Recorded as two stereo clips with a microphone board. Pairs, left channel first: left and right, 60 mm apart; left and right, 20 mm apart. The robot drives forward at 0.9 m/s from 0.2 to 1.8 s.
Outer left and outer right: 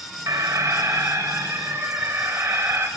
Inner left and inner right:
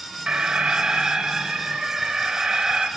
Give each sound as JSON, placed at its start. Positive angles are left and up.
{"t": 0.3, "sound": "an alarm", "side_deg": -65, "distance_m": 3.0}